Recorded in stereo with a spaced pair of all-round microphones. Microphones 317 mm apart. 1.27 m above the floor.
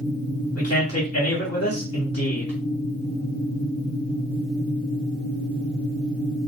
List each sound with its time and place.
0.6 s a man speaking: 50° left (ahead or behind), 2.0 m